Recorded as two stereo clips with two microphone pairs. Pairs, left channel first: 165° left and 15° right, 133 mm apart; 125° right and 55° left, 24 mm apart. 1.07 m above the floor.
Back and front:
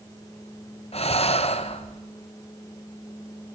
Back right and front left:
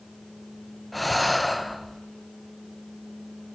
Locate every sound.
0.9 s breathing: 150° left, 0.7 m